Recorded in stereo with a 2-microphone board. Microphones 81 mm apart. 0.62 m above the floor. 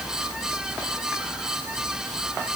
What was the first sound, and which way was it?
Only background noise.